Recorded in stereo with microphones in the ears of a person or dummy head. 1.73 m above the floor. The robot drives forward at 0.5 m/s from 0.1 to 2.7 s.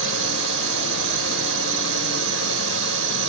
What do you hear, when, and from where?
0.0 s a drone: 85° right